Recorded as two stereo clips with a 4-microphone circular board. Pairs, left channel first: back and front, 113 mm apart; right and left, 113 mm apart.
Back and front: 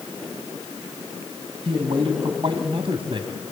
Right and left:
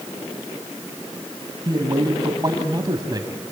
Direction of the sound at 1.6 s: 35° left.